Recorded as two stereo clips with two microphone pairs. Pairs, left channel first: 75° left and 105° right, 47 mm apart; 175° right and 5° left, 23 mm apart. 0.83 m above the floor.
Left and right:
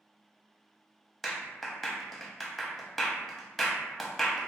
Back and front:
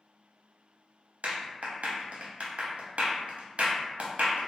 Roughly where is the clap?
Ahead.